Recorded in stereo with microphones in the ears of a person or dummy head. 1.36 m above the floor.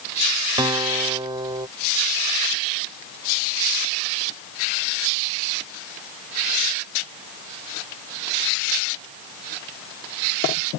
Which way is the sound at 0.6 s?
25° right (ahead or behind).